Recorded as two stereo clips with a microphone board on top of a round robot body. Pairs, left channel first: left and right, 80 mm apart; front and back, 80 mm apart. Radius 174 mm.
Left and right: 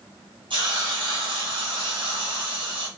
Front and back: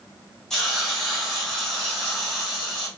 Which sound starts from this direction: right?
A hiss, at 0.5 s.